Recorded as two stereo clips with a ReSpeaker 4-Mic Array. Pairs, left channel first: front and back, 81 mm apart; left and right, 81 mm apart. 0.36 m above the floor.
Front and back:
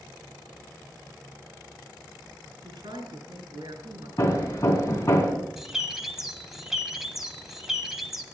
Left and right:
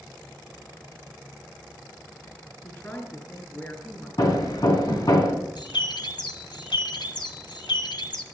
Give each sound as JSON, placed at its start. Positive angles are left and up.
{"t": 2.6, "sound": "a woman speaking", "azimuth_deg": 155, "distance_m": 5.0}
{"t": 4.2, "sound": "hammering", "azimuth_deg": 50, "distance_m": 2.5}
{"t": 5.6, "sound": "a bird", "azimuth_deg": 95, "distance_m": 1.6}